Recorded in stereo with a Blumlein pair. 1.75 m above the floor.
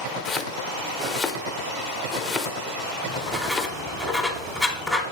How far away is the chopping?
About 0.7 m.